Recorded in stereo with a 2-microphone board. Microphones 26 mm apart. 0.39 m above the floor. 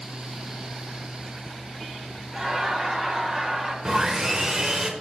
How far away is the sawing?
About 0.9 m.